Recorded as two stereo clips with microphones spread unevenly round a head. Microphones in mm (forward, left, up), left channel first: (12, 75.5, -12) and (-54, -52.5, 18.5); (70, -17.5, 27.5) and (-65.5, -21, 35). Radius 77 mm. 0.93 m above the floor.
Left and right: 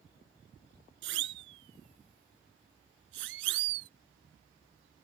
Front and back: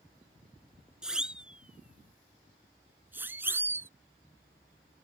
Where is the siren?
95° right; by 3.9 s 105° right.